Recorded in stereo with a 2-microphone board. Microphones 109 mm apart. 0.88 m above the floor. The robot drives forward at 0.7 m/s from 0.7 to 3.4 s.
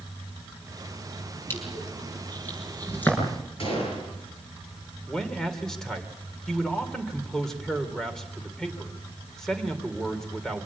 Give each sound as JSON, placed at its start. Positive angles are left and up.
{"t": 1.5, "sound": "crushing", "side_deg": 20, "distance_m": 6.0}
{"t": 3.6, "sound": "a gunshot", "side_deg": 60, "distance_m": 8.0}
{"t": 5.1, "sound": "a man speaking", "side_deg": 5, "distance_m": 3.0}